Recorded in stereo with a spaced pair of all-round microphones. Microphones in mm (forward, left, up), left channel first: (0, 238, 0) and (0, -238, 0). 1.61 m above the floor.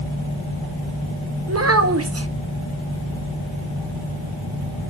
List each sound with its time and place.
1.5 s a child speaking: 30° right (ahead or behind), 0.6 m